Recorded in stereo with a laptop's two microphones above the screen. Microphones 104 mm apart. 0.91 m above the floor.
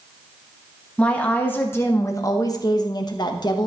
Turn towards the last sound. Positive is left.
turn(degrees=45)  # may be behind; listen again after turning